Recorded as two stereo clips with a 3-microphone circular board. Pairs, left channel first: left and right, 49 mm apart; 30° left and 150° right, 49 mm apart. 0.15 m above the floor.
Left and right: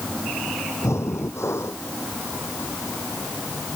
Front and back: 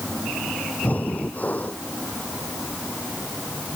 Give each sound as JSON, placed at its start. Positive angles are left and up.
{"t": 0.8, "sound": "breathing", "azimuth_deg": 85}